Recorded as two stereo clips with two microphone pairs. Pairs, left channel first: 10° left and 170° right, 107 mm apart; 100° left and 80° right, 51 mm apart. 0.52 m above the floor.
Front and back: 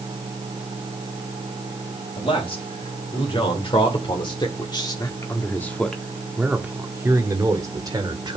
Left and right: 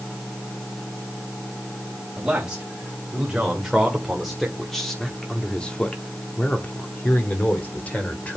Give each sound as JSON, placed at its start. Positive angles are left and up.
{"t": 2.2, "sound": "a man speaking", "azimuth_deg": -5, "distance_m": 2.5}